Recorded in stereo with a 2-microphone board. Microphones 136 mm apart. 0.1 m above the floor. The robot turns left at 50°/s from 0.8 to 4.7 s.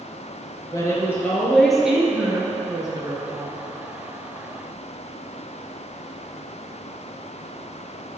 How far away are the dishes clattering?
I don't hear dishes clattering.